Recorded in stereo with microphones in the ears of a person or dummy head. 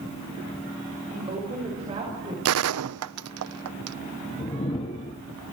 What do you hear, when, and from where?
1.1 s a woman speaking: 25° right (ahead or behind), 6.5 m
2.5 s a gunshot: 75° right (ahead or behind), 0.6 m
4.4 s a whoosh: 25° left (ahead or behind), 1.0 m